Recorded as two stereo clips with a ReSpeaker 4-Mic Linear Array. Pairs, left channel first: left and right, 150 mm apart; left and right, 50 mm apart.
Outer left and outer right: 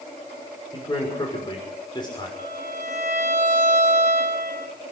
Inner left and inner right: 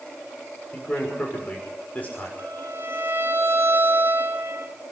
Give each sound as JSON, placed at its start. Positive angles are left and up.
{"t": 0.7, "sound": "a man speaking", "side_deg": 30, "distance_m": 6.0}
{"t": 2.4, "sound": "a violin", "side_deg": -50, "distance_m": 1.8}